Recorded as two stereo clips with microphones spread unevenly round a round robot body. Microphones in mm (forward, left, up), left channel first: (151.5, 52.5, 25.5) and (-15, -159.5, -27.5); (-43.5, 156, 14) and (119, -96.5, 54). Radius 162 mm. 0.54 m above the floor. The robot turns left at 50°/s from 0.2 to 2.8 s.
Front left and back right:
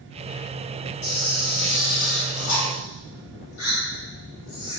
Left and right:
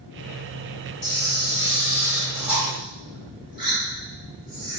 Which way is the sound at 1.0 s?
110° left.